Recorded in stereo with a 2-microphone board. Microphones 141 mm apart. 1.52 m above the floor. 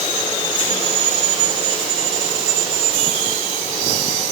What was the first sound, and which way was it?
Only background noise.